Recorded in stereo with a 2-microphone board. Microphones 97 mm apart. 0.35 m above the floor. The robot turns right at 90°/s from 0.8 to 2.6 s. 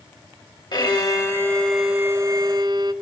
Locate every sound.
0.7 s a violin: 100° left, 1.8 m; by 2.9 s 100° right, 1.8 m